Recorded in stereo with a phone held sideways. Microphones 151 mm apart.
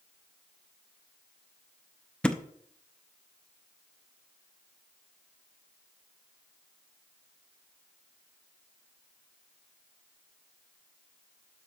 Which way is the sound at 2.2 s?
5° left (ahead or behind).